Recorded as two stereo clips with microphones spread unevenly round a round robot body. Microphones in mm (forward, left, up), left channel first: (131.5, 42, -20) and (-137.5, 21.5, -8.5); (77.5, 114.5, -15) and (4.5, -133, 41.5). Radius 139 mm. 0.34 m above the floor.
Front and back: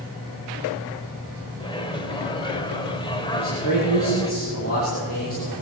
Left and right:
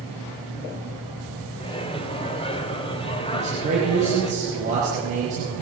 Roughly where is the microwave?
Ahead left.